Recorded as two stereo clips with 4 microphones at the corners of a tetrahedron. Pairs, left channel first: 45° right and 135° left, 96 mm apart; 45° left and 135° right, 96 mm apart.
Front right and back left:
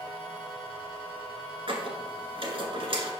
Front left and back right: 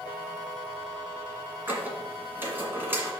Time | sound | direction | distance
1.7 | a squeak | 155° left | 1.6 m